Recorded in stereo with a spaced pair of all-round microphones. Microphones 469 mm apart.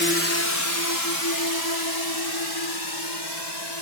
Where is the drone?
25° left (ahead or behind); by 3.8 s 60° left (ahead or behind).